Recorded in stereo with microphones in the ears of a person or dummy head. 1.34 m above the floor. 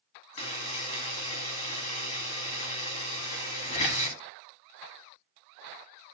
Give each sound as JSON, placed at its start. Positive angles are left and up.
{"t": 0.4, "sound": "a buzzer", "side_deg": 30, "distance_m": 1.0}